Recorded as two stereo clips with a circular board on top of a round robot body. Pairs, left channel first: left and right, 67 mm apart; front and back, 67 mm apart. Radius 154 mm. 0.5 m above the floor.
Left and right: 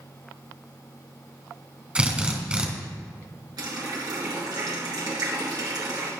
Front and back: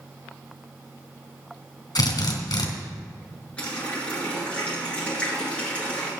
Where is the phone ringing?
I don't hear a phone ringing.